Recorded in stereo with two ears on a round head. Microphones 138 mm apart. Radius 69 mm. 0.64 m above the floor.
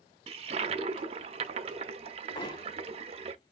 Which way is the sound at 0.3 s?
40° right (ahead or behind).